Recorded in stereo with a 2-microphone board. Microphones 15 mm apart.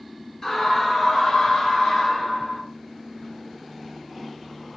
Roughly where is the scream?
Left.